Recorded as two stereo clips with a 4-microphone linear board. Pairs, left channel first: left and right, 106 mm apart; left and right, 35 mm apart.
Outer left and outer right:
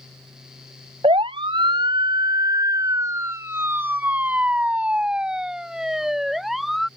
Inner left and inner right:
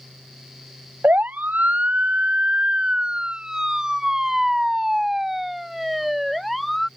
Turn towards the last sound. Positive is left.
turn(degrees=0)  # may be behind; listen again after turning